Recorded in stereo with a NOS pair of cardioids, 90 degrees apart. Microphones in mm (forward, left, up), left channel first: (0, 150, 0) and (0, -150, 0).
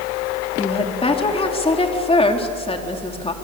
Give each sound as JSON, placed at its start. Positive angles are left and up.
{"t": 0.6, "sound": "a woman speaking", "azimuth_deg": 20, "distance_m": 3.5}